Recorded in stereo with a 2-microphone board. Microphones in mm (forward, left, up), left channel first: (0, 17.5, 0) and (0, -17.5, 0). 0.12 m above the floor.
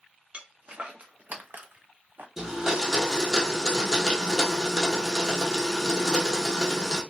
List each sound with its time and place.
0.3 s footsteps: 35° right (ahead or behind), 1.0 m; by 2.3 s 75° right (ahead or behind), 0.5 m
2.4 s a blender: 15° right (ahead or behind), 0.9 m